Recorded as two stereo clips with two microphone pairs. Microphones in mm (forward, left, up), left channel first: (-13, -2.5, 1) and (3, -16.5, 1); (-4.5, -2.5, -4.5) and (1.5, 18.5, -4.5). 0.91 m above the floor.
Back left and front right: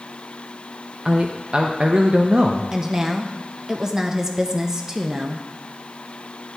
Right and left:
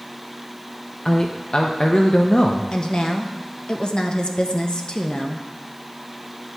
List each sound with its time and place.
1.1 s a man speaking: 75° right, 0.6 m
2.7 s a woman speaking: 100° right, 0.7 m